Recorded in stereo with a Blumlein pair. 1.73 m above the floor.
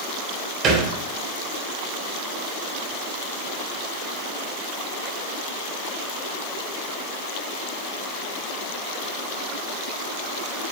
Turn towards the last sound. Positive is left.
turn(degrees=-30)